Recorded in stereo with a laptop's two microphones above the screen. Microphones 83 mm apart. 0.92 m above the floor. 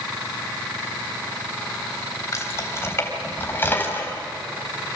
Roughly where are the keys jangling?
Left.